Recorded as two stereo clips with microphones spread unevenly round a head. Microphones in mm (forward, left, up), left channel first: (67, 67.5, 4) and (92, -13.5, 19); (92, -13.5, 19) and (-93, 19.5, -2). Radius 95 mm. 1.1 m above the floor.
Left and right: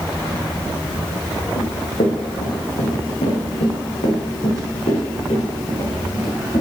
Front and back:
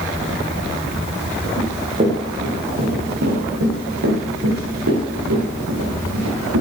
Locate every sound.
1.6 s running footsteps: 105° left, 4.5 m; by 6.6 s 160° left, 7.5 m